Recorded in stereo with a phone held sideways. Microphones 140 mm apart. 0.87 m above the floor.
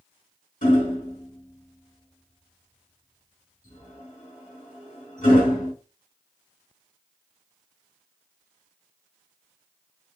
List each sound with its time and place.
0.6 s hammering: 65° left (ahead or behind), 2 m